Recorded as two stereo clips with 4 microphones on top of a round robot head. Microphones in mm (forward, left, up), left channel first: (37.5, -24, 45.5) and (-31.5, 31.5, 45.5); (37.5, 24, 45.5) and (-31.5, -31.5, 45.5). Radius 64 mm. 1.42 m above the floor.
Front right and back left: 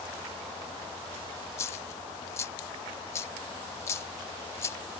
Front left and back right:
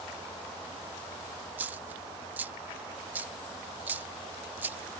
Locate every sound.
1.6 s a dropped coin: 85° right